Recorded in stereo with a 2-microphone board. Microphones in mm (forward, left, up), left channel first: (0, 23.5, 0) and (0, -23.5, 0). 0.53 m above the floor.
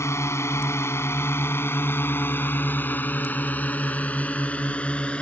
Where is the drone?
75° left (ahead or behind); by 5.2 s 25° left (ahead or behind).